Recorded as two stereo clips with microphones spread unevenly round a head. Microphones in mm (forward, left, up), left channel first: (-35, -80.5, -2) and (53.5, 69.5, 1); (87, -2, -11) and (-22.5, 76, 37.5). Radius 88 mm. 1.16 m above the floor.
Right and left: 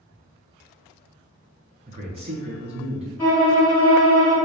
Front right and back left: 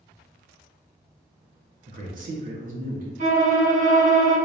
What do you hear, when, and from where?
1.9 s a man speaking: 115° left, 1.2 m
3.2 s a violin: 160° left, 1.7 m